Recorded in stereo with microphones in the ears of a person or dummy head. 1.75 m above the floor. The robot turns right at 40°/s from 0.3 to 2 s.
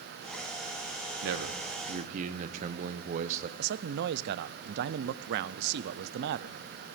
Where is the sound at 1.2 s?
80° right, 0.8 m; by 3.5 s 50° right, 0.8 m.